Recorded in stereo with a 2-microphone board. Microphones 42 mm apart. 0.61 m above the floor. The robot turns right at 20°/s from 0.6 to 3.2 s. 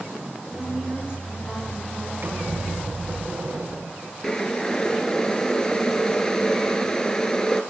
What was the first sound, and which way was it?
A woman speaking, 35° right.